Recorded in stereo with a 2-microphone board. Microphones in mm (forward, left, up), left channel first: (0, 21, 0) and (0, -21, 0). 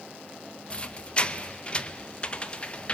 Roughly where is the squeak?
Left.